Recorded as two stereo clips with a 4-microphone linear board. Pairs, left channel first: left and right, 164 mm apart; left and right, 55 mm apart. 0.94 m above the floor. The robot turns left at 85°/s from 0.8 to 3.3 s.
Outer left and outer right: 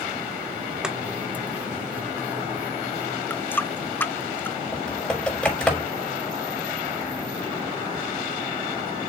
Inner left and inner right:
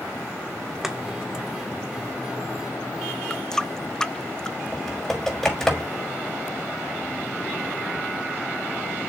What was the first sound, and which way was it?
Chopping, 5° right (ahead or behind).